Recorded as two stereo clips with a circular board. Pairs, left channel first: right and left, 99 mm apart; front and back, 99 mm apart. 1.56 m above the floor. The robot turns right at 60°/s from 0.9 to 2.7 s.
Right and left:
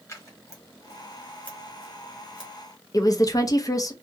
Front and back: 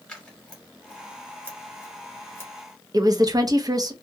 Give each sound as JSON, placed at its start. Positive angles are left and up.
{"t": 0.1, "sound": "scissors", "azimuth_deg": -70, "distance_m": 1.1}
{"t": 2.9, "sound": "a woman speaking", "azimuth_deg": -135, "distance_m": 0.5}